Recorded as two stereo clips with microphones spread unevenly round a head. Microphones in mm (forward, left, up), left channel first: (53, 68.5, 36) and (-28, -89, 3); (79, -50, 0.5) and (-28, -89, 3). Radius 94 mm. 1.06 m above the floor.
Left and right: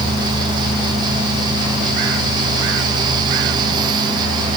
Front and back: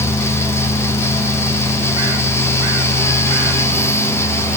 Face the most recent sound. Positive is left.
No sound to turn to.